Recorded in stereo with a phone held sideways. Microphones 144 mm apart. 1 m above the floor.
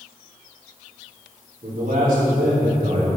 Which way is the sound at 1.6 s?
75° right (ahead or behind).